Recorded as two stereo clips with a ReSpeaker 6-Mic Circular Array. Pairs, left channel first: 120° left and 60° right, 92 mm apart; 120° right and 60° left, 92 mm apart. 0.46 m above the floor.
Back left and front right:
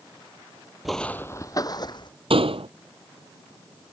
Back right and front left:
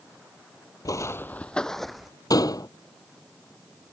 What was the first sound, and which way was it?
Footsteps, 145° right.